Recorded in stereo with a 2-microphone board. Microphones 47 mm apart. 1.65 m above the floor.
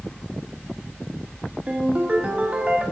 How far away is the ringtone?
About 1.2 m.